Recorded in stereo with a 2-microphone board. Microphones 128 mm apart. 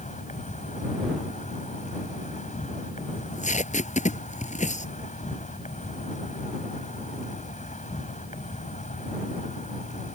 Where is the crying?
I don't hear crying.